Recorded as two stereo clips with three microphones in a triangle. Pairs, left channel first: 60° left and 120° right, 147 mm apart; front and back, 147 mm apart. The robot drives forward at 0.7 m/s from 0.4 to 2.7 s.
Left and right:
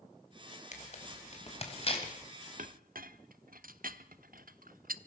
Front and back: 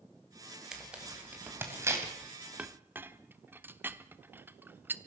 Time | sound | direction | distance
0.7 | tearing paper | 95° left | 3.5 m
2.6 | a clink | 100° right | 0.8 m